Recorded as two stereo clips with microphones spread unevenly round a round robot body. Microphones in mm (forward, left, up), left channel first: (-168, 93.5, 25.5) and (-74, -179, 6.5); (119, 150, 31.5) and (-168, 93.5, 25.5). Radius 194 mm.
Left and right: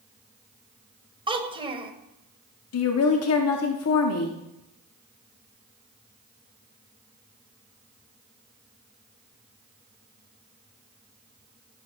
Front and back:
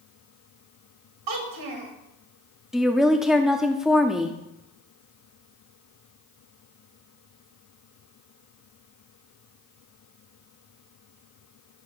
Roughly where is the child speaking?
Behind right.